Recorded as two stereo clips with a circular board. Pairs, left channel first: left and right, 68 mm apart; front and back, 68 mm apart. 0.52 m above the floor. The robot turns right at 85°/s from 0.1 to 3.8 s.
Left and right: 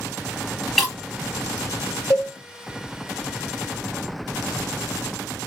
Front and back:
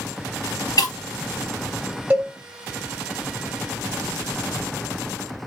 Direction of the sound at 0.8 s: Straight ahead.